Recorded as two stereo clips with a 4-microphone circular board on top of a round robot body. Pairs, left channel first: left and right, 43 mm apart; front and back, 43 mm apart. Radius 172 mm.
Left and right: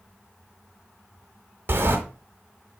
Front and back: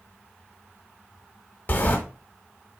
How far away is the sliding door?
About 1.4 m.